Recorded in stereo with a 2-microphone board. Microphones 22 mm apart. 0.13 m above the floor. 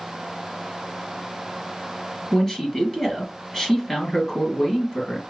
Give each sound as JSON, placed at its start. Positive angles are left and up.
{"t": 2.3, "sound": "a man speaking", "side_deg": 20, "distance_m": 2.0}